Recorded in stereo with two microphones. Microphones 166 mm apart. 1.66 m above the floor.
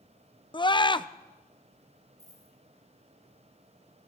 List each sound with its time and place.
0.5 s a scream: 30° left (ahead or behind), 0.5 m
2.2 s a dropped coin: 20° right (ahead or behind), 3 m